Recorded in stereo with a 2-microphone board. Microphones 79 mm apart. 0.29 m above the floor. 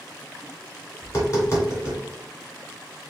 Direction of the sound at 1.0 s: 45° left (ahead or behind).